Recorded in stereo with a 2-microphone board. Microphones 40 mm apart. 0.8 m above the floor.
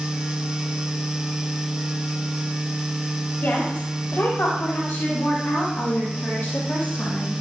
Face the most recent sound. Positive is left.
turn(degrees=85)